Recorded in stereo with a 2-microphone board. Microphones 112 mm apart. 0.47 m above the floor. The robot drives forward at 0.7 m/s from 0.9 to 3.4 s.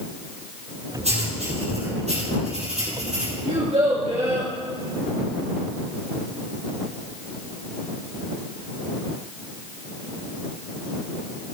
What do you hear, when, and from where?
1.0 s writing: 70° right (ahead or behind), 4.5 m; by 3.3 s 90° right, 4.5 m
3.5 s a child speaking: 80° right, 4 m